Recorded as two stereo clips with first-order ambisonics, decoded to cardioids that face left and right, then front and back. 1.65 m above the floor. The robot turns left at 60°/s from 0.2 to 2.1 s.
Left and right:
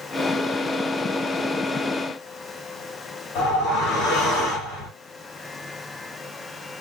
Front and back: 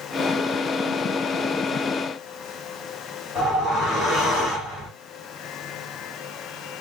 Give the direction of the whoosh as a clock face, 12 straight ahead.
9 o'clock.